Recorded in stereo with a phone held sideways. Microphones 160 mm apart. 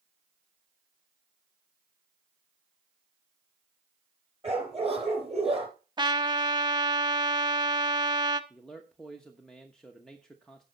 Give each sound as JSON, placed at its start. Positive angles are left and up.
{"t": 4.4, "sound": "a dog barking", "side_deg": -40, "distance_m": 3.5}
{"t": 6.0, "sound": "a trumpet", "side_deg": -30, "distance_m": 0.8}
{"t": 8.5, "sound": "a man speaking", "side_deg": 5, "distance_m": 1.1}